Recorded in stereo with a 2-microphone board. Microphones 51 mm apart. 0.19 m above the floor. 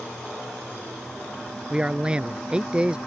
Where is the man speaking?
20° right (ahead or behind).